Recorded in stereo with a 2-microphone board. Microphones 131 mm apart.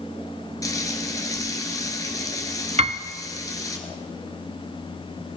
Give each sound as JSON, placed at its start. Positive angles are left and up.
{"t": 0.6, "sound": "frying", "side_deg": 25, "distance_m": 1.5}
{"t": 2.8, "sound": "a piano", "side_deg": -50, "distance_m": 0.6}